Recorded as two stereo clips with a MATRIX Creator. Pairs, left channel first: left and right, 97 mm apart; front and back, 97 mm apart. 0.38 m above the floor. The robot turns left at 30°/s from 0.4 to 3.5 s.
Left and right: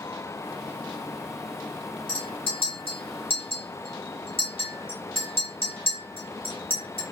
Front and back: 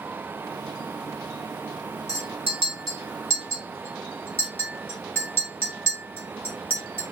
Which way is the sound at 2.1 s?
120° left.